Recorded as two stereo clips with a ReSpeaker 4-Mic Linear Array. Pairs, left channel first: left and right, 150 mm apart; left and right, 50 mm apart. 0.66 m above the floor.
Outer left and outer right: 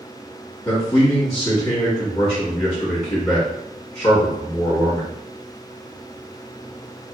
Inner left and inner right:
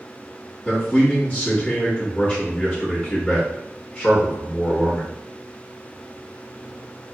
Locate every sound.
0.7 s a man speaking: 25° left (ahead or behind), 1.0 m